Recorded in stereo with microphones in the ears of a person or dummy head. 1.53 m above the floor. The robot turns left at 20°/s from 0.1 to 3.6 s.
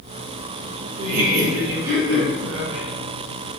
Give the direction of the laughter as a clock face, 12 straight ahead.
2 o'clock.